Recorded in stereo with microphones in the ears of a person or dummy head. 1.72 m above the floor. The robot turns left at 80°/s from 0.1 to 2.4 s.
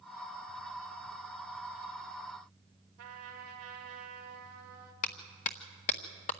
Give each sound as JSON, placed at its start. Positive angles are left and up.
{"t": 3.0, "sound": "a trumpet", "side_deg": -70, "distance_m": 4.0}
{"t": 5.0, "sound": "a clap", "side_deg": 30, "distance_m": 0.7}